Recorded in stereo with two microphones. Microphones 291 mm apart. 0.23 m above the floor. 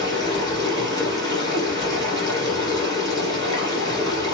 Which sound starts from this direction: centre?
Running water, at 0.0 s.